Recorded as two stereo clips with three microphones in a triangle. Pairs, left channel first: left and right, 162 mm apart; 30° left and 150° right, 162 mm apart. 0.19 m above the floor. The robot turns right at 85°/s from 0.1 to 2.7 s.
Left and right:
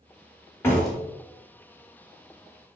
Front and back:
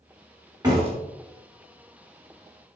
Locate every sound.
0.6 s a door slam: 160° left, 1.4 m; by 1.0 s 175° right, 1.4 m